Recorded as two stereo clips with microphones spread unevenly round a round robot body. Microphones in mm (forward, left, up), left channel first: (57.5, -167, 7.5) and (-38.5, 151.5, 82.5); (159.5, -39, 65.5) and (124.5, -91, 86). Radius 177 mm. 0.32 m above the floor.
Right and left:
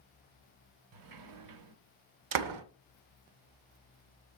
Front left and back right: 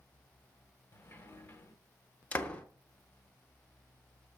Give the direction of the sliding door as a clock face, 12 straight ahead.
9 o'clock.